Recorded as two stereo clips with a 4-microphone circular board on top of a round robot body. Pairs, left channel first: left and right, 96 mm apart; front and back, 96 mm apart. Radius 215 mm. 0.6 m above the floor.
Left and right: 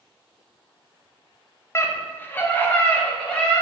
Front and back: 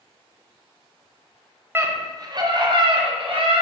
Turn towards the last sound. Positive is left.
turn(degrees=170)